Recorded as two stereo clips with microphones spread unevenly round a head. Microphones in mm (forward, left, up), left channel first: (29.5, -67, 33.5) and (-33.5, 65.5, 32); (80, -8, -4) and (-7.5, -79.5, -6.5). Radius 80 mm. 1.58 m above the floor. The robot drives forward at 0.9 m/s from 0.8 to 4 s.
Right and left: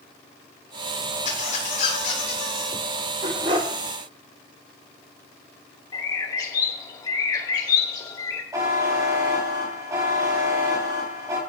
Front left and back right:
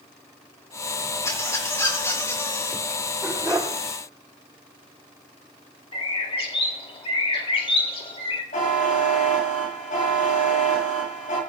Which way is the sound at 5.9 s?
Straight ahead.